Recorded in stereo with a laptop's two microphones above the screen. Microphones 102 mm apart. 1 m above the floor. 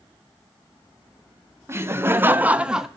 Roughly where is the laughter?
Right.